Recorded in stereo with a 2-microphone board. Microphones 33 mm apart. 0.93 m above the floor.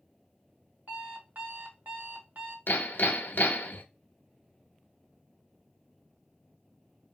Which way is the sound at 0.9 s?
60° right (ahead or behind).